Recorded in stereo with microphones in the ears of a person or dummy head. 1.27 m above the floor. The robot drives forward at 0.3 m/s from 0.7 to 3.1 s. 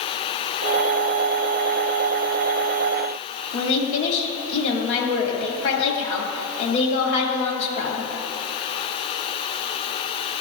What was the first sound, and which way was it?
A woman speaking, 70° left (ahead or behind).